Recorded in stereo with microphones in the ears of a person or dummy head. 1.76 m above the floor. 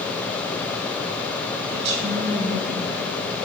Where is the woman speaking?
65° right (ahead or behind), 2.5 m; by 3.1 s 50° right (ahead or behind), 1.4 m.